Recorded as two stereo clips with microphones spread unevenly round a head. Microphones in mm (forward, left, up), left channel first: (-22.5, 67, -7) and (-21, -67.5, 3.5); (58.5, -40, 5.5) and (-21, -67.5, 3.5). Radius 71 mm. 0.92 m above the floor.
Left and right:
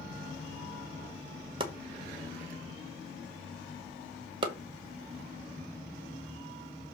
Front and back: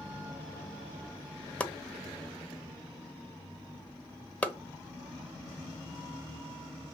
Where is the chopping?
45° right, 1.0 m.